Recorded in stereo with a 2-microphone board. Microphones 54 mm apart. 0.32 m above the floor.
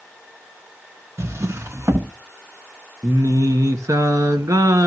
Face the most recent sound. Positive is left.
turn(degrees=-80)